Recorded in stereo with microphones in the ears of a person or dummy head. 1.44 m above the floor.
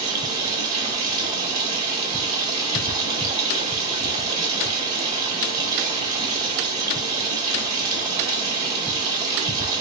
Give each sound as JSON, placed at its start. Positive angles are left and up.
{"t": 0.0, "sound": "running water", "side_deg": -25, "distance_m": 1.5}